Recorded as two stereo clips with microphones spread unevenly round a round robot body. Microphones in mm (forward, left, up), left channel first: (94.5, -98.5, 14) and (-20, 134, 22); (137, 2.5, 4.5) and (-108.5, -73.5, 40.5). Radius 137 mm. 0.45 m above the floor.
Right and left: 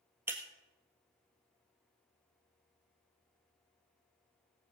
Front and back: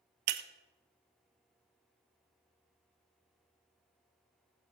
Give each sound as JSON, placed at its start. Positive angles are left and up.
{"t": 0.3, "sound": "breaking glass", "azimuth_deg": -160, "distance_m": 1.1}